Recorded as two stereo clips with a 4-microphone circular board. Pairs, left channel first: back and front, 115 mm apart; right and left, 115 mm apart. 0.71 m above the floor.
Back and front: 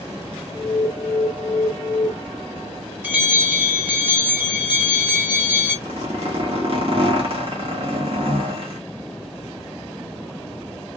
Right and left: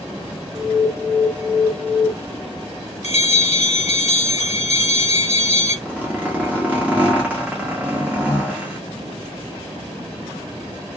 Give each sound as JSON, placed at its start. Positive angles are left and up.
{"t": 0.5, "sound": "an alarm", "azimuth_deg": 35, "distance_m": 2.0}
{"t": 3.0, "sound": "a bell", "azimuth_deg": -75, "distance_m": 0.9}
{"t": 5.8, "sound": "a zipper", "azimuth_deg": 20, "distance_m": 1.6}